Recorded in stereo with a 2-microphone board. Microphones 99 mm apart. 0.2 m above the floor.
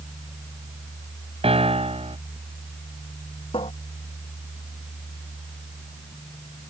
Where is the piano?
75° right (ahead or behind).